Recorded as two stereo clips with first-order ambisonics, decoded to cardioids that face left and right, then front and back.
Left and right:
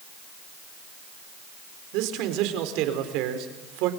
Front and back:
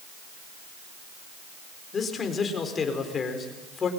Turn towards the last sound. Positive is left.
turn(degrees=-70)